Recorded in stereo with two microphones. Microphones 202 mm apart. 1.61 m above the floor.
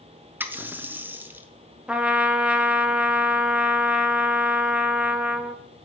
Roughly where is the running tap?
Centre.